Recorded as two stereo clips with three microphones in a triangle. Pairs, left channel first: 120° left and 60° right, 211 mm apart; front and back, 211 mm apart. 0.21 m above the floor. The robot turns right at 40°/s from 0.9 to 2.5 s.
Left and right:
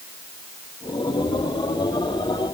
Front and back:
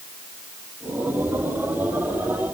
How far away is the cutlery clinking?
No cutlery clinking in this recording.